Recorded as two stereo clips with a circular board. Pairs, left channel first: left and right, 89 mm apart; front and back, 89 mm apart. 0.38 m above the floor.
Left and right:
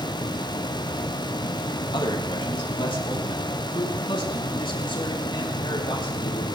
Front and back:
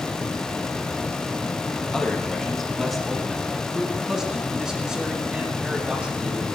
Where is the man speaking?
80° left, 3 m; by 6.5 s 105° left, 6 m.